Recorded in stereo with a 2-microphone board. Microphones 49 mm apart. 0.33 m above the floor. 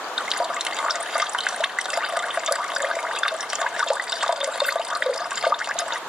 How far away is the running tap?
About 0.5 m.